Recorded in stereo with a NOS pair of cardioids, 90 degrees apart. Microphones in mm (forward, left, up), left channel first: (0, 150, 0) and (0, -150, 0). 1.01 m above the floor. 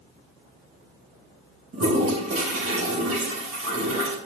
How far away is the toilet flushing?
About 3 m.